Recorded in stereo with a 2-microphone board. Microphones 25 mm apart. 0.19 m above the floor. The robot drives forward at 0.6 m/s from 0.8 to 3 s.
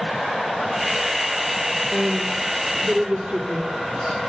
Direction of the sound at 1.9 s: 75° right (ahead or behind).